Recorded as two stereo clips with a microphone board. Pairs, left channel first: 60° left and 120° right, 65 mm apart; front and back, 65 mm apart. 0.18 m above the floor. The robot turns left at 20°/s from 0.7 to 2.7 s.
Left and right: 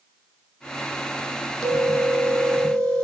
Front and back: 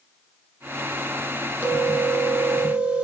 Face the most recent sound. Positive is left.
turn(degrees=125)